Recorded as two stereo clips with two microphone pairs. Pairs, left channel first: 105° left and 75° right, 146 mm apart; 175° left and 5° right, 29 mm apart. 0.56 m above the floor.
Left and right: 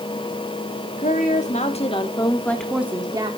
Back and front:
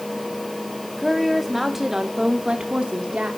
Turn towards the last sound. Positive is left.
turn(degrees=-30)